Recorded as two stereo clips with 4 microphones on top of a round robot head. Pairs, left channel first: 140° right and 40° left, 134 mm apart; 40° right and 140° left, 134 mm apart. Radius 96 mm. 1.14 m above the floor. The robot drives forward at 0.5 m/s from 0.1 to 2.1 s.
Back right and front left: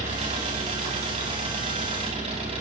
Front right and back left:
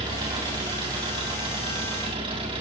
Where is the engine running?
80° left, 9 m; by 2.6 s 85° left, 9 m.